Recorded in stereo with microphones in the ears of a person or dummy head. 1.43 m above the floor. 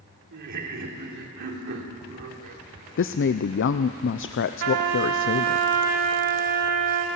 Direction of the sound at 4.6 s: 55° right (ahead or behind).